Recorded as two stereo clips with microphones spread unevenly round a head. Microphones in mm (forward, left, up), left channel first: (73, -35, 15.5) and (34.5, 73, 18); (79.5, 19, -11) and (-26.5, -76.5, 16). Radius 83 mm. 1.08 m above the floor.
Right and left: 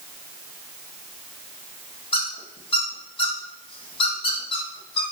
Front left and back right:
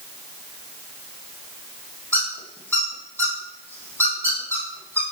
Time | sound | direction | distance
2.1 | a squeak | 35° right | 1.8 m